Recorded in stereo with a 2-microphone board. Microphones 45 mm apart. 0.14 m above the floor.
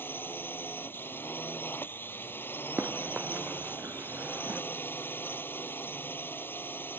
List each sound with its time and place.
0.0 s a drone: 55° left (ahead or behind)
2.8 s running footsteps: 55° right (ahead or behind); by 4.6 s 35° right (ahead or behind)